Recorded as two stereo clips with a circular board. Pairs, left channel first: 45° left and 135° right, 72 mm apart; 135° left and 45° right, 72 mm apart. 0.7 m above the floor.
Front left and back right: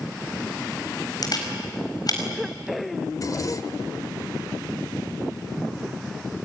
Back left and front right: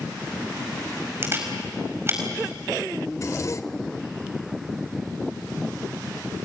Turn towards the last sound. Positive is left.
turn(degrees=85)